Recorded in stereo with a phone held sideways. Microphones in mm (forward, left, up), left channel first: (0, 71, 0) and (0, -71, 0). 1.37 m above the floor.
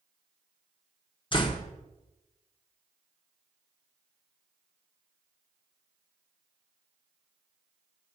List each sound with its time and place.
1.3 s a door slam: 35° left (ahead or behind), 0.7 m